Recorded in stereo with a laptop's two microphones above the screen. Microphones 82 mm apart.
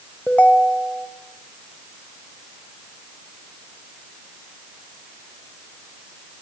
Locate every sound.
0.3 s a ringtone: 15° left (ahead or behind), 1.6 m